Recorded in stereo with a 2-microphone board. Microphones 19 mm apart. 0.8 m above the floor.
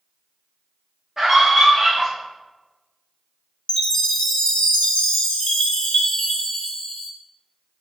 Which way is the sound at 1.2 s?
25° right (ahead or behind).